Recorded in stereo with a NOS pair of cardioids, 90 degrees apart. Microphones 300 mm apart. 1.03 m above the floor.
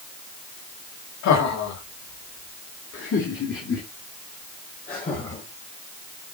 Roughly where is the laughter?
Left.